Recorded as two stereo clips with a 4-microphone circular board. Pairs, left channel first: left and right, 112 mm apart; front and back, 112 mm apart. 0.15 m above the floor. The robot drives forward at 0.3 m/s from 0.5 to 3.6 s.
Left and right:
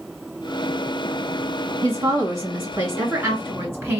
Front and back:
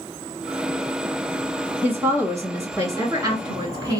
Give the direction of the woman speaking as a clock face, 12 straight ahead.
4 o'clock.